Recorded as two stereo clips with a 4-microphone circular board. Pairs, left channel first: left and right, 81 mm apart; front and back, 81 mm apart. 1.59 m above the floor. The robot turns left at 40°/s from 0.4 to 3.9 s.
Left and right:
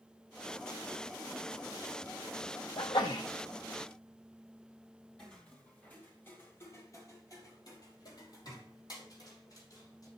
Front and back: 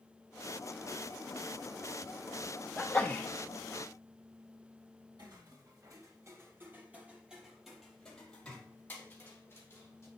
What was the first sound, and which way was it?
A sneeze, 80° left.